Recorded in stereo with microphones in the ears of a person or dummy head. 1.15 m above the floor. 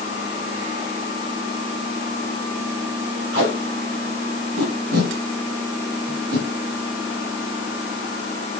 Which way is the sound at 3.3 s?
75° right (ahead or behind).